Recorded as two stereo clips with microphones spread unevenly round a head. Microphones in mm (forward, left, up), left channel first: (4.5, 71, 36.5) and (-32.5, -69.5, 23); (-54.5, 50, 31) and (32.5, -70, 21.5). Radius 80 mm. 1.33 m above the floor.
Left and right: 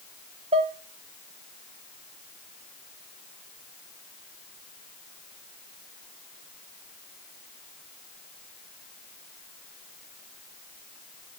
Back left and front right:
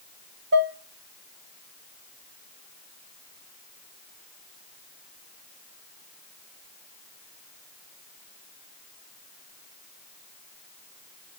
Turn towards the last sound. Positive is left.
turn(degrees=-50)